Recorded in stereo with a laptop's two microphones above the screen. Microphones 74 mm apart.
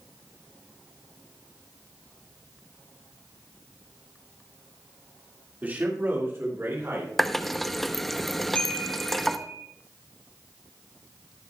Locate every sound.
5.6 s a man speaking: 25° right (ahead or behind), 2 m; by 7.1 s 45° right (ahead or behind), 3 m
7.2 s a running tap: centre (ahead or behind), 0.7 m
8.6 s a chime: 15° left (ahead or behind), 1.2 m